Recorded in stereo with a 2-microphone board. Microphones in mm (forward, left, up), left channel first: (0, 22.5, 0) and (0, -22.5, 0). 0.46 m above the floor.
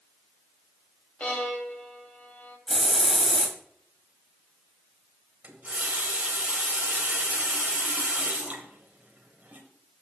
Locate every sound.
1.2 s a violin: 30° left (ahead or behind), 1.6 m
2.7 s a hiss: centre (ahead or behind), 1.7 m
5.4 s a running tap: 35° right (ahead or behind), 1.6 m